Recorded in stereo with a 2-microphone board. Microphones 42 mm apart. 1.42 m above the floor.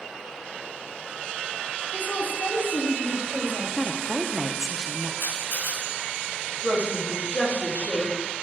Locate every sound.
1.9 s a woman speaking: 65° left (ahead or behind), 2.5 m; by 4.0 s 85° left, 3.5 m
3.8 s a woman speaking: 15° right (ahead or behind), 0.7 m
5.2 s a camera shutter: 65° left (ahead or behind), 4 m
6.6 s a woman speaking: 40° left (ahead or behind), 3 m